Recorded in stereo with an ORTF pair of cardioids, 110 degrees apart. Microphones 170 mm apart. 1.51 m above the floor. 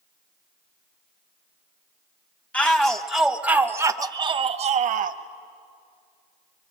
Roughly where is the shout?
Ahead.